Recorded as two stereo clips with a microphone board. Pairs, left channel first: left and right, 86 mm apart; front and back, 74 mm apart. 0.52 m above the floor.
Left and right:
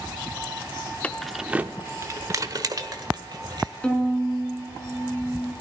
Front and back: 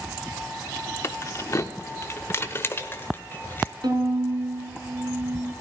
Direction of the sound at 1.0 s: 25° left.